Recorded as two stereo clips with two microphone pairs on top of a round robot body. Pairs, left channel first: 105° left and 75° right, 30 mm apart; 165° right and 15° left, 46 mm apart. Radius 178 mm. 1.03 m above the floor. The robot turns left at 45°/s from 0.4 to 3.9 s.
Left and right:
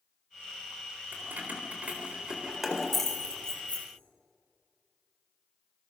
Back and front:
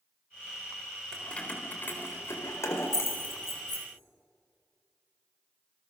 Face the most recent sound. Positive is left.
turn(degrees=145)